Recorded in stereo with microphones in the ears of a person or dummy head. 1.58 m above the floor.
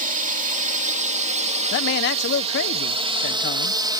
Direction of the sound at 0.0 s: 45° right (ahead or behind).